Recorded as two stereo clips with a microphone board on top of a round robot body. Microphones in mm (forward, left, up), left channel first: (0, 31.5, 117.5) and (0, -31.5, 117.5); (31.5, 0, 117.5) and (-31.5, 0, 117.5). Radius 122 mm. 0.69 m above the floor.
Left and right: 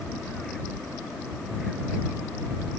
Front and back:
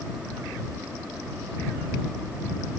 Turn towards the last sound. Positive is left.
No sound to turn to.